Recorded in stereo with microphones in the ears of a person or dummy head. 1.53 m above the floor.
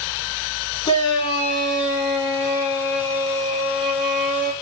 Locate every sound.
0.8 s a shout: 20° left (ahead or behind), 3.5 m